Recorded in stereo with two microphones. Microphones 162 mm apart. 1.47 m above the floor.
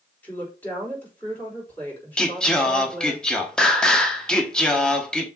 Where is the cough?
No cough in this recording.